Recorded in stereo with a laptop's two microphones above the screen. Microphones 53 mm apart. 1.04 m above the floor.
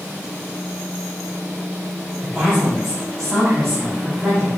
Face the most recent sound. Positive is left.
turn(degrees=5)  # may be behind; listen again after turning